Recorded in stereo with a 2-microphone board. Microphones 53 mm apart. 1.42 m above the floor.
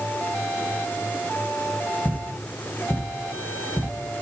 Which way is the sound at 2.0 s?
50° left (ahead or behind).